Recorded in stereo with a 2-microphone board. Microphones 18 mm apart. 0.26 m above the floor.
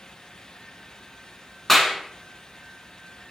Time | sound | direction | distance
1.7 | a clap | 10° left (ahead or behind) | 2.5 m